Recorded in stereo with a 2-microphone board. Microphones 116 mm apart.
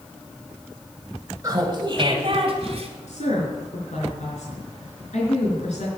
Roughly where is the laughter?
Right.